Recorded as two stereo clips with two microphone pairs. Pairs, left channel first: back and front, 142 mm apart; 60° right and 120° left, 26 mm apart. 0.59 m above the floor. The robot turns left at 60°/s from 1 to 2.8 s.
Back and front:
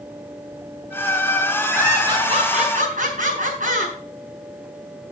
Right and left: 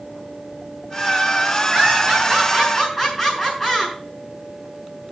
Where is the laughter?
80° left, 6.5 m; by 4.0 s 15° left, 6.5 m.